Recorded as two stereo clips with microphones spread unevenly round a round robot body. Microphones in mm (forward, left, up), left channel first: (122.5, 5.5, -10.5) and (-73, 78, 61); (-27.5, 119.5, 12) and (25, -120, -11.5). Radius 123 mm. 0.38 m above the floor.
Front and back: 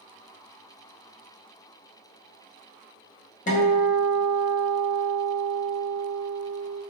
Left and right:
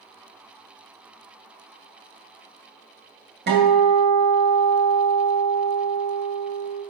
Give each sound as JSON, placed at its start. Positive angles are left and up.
{"t": 3.5, "sound": "a guitar", "azimuth_deg": -45, "distance_m": 2.0}